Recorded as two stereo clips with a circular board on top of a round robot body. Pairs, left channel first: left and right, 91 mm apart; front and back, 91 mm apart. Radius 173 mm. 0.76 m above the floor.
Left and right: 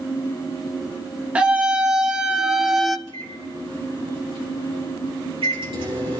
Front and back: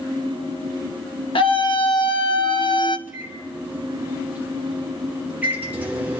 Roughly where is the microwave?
Right.